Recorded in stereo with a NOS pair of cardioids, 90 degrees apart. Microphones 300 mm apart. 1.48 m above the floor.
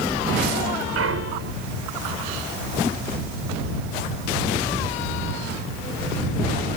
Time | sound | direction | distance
0.9 | a clunk | 50° right | ?